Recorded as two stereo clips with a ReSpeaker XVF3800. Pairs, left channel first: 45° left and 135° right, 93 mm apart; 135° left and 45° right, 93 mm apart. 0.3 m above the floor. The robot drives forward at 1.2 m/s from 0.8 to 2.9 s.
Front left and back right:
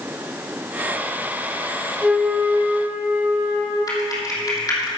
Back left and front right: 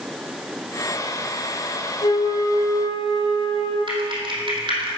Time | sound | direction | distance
2.0 | a flute | 140° left | 1.0 m
3.9 | typing on a keyboard | 5° right | 3 m